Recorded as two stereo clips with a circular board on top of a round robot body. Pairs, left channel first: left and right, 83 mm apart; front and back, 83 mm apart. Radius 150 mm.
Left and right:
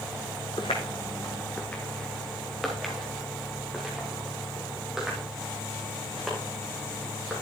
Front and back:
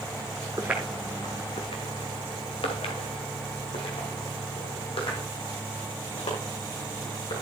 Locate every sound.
0.6 s footsteps: 120° left, 0.6 m; by 7.4 s 10° right, 4 m